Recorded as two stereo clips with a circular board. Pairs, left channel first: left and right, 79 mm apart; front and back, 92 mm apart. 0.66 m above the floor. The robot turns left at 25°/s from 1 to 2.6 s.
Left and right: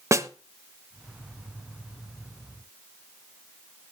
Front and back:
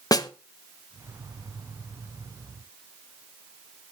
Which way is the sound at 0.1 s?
40° right.